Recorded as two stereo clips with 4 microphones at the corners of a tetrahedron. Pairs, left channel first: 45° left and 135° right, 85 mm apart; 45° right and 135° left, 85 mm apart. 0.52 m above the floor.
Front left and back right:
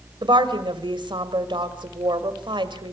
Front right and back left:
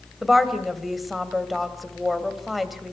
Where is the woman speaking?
135° right, 2 m.